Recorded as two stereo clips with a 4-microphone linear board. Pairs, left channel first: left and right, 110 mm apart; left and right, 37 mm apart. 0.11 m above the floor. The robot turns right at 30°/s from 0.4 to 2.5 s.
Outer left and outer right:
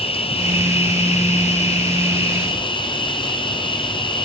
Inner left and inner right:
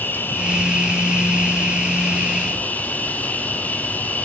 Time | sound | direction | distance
0.0 | an insect | 65° left | 1.1 m